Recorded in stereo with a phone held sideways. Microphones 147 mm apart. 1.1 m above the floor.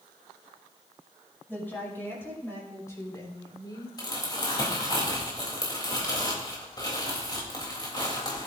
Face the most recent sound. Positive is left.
turn(degrees=30)  # may be behind; listen again after turning